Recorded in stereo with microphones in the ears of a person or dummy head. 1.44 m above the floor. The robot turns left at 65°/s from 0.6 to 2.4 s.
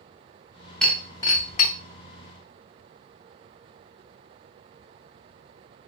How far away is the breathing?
No breathing in this recording.